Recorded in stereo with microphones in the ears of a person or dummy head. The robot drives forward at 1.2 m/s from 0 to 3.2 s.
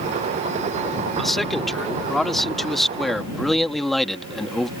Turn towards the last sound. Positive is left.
turn(degrees=0)  # may be behind; listen again after turning